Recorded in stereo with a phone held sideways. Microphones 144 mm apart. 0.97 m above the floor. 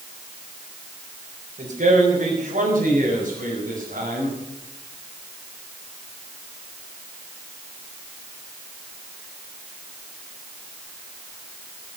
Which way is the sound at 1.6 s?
75° right (ahead or behind).